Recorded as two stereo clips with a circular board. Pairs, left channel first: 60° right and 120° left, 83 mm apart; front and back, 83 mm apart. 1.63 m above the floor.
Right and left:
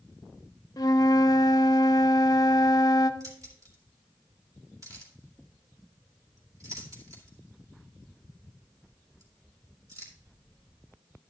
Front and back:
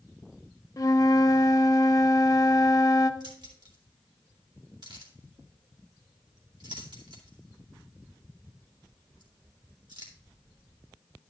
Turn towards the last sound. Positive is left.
turn(degrees=165)